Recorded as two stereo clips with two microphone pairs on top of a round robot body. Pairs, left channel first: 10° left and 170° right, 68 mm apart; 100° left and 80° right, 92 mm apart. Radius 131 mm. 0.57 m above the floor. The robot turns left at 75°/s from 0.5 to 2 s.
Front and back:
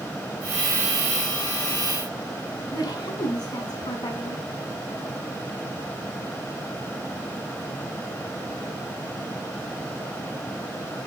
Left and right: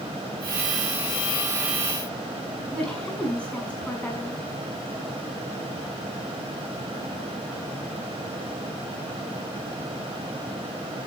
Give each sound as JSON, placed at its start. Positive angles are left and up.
{"t": 2.7, "sound": "a woman speaking", "azimuth_deg": 25, "distance_m": 6.0}